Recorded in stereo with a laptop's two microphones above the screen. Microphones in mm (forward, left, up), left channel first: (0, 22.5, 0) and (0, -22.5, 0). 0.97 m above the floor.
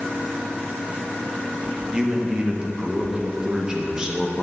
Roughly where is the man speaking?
Centre.